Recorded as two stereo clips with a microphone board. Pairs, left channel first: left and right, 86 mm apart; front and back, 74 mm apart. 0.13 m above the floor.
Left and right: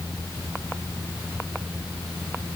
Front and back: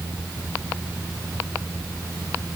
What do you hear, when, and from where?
Only background noise.